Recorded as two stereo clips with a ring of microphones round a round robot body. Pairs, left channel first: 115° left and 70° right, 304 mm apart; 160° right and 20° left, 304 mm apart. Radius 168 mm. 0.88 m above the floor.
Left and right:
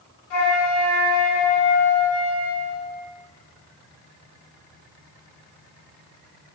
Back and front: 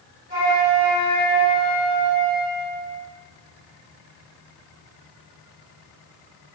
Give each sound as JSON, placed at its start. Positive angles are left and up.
{"t": 0.3, "sound": "a flute", "azimuth_deg": 95, "distance_m": 4.0}